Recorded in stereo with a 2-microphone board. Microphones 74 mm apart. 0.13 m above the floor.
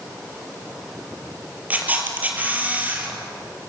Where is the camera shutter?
25° right (ahead or behind), 4 m.